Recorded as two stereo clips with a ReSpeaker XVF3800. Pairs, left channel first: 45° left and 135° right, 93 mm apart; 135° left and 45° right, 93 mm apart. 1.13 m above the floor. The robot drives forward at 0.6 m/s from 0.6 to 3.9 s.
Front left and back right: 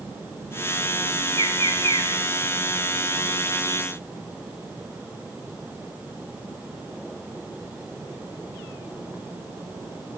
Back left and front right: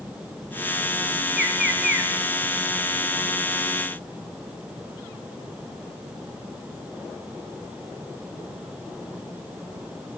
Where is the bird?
130° right, 7.5 m.